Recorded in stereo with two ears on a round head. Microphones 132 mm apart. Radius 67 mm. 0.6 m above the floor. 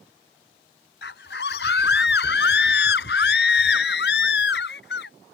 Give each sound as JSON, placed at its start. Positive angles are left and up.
{"t": 1.0, "sound": "a scream", "side_deg": 80}